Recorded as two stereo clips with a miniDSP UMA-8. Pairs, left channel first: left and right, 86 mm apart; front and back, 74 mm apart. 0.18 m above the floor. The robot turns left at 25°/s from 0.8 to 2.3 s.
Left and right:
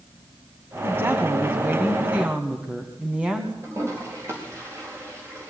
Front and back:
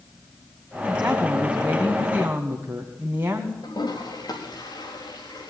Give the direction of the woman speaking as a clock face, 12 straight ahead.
4 o'clock.